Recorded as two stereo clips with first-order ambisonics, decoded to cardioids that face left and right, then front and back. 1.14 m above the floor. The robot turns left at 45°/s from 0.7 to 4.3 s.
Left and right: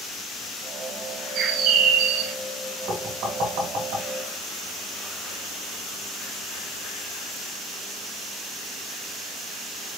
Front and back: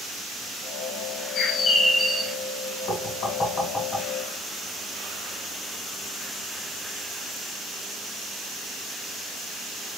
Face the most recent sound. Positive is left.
turn(degrees=-95)